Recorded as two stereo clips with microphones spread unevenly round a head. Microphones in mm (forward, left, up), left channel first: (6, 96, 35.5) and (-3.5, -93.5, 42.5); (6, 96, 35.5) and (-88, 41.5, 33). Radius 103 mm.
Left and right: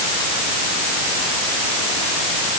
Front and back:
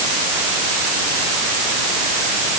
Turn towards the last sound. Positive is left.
No sound to turn to.